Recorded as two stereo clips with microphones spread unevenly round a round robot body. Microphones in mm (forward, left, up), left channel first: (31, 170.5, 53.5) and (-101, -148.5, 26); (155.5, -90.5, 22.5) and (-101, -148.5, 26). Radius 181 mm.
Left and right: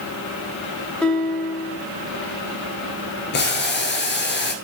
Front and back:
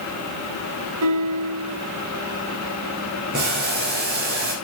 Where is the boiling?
130° left, 2 m.